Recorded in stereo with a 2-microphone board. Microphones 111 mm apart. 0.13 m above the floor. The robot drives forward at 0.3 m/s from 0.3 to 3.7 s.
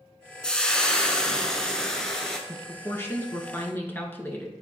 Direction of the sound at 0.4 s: 10° left (ahead or behind).